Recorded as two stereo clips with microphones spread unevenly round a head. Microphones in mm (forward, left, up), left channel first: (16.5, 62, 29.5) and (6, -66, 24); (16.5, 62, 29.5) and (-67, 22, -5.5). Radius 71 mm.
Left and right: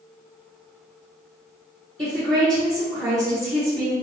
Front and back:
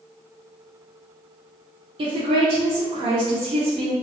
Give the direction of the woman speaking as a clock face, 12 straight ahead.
6 o'clock.